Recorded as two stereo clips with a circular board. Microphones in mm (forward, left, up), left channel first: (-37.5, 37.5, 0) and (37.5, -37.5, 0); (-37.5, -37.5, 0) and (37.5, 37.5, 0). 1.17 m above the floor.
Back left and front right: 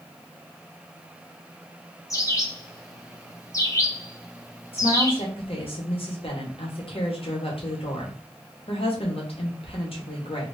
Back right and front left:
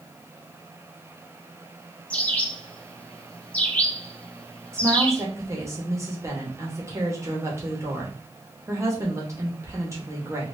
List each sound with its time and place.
2.1 s a bird: 160° left, 0.7 m
4.7 s a woman speaking: 105° left, 1.3 m